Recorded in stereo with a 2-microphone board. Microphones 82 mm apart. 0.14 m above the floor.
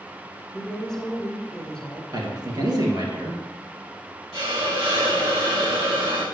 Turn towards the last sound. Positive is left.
turn(degrees=-70)  # may be behind; listen again after turning